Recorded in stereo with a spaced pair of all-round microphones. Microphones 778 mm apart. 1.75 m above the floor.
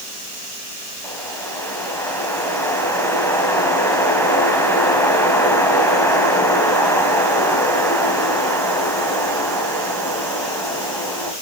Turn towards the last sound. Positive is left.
turn(degrees=5)  # may be behind; listen again after turning